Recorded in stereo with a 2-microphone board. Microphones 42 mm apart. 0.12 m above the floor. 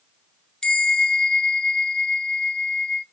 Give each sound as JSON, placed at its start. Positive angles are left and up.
{"t": 0.6, "sound": "a bell", "side_deg": 15, "distance_m": 0.9}